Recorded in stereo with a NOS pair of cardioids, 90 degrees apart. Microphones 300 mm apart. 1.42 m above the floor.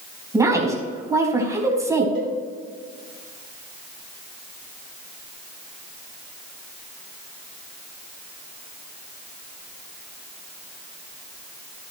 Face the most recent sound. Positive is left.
turn(degrees=-40)